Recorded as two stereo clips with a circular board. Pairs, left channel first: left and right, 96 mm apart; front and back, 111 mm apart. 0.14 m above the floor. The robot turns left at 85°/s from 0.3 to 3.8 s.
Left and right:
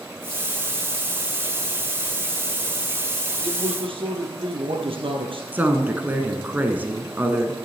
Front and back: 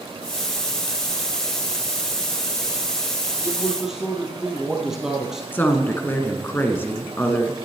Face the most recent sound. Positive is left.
turn(degrees=-45)